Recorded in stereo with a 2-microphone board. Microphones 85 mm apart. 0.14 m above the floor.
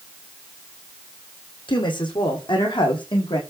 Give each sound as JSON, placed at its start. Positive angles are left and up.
{"t": 1.7, "sound": "a woman speaking", "side_deg": 65, "distance_m": 6.0}